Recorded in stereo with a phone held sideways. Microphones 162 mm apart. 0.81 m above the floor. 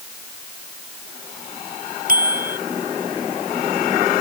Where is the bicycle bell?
60° right (ahead or behind).